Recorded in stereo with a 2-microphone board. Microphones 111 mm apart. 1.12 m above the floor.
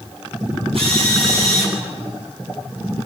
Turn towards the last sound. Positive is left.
turn(degrees=-60)  # may be behind; listen again after turning